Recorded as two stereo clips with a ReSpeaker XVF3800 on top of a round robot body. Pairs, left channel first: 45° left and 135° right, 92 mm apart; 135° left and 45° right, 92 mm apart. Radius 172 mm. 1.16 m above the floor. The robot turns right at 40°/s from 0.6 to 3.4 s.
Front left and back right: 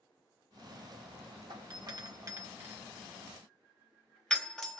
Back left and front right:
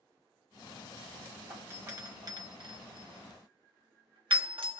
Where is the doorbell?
115° right, 1.1 m; by 4.8 s 35° right, 1.1 m.